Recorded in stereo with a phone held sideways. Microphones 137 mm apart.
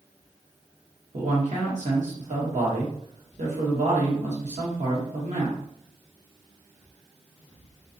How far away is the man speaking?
About 1.1 m.